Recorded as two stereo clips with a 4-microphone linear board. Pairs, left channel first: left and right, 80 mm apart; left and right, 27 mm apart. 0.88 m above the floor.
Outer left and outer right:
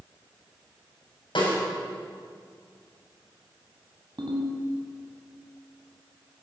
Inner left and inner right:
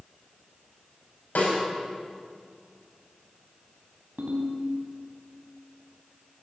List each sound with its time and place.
1.4 s a snare drum: 80° left, 5.5 m
4.2 s a ringtone: 70° right (ahead or behind), 3 m